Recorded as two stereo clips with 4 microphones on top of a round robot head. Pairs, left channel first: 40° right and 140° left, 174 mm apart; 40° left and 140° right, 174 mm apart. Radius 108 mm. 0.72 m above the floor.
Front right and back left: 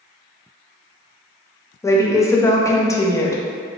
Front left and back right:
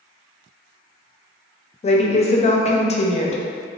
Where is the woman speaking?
25° left, 0.6 m.